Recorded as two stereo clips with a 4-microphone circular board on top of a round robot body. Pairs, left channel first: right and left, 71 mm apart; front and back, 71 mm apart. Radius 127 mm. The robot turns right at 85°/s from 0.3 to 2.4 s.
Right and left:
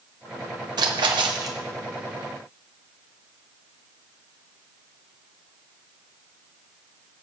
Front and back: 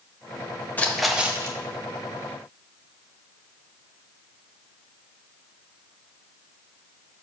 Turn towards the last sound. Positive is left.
turn(degrees=-155)